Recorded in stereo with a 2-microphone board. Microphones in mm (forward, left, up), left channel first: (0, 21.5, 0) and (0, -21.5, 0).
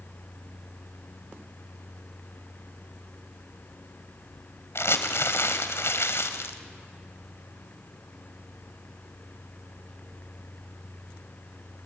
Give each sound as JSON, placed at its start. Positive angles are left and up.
{"t": 4.8, "sound": "crumpling", "side_deg": 80, "distance_m": 1.7}